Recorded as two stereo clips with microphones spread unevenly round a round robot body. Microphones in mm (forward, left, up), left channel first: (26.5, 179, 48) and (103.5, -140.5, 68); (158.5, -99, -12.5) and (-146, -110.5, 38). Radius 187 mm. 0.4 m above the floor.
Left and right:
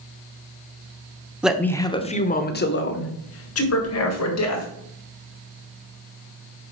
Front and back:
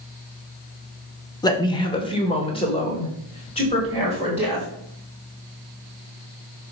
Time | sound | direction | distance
1.4 | a man speaking | 15° left | 0.8 m